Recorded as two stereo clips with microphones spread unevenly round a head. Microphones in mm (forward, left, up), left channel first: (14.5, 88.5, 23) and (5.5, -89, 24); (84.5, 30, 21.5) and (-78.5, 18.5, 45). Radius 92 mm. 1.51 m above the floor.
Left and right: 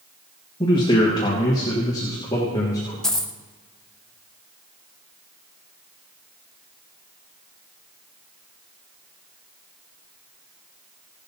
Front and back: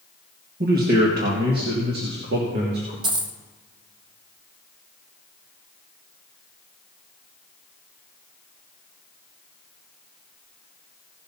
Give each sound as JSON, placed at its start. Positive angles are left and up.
{"t": 0.6, "sound": "a man speaking", "azimuth_deg": 155, "distance_m": 1.8}
{"t": 3.0, "sound": "a dropped coin", "azimuth_deg": 170, "distance_m": 0.8}